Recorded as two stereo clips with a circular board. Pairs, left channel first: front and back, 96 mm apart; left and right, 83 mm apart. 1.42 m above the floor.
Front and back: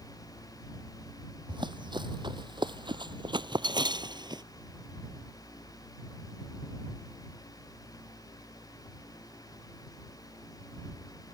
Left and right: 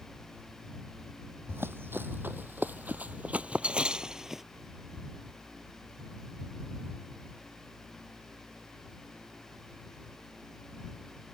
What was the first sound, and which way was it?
Running footsteps, 150° right.